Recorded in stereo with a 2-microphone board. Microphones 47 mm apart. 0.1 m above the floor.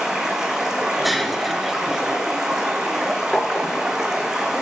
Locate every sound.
0.0 s running water: 10° right (ahead or behind), 1.6 m
1.0 s breaking glass: centre (ahead or behind), 0.8 m
3.3 s tapping: 20° left (ahead or behind), 1.1 m